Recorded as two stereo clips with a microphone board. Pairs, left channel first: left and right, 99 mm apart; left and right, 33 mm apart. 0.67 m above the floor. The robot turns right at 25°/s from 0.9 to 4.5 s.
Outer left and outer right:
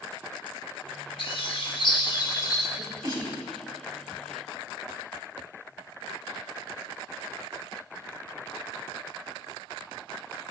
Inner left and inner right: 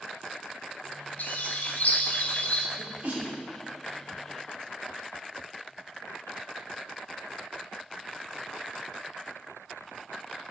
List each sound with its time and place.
1.2 s a bird: 95° left, 0.7 m; by 2.7 s 135° left, 0.7 m
2.8 s a sneeze: 55° right (ahead or behind), 2 m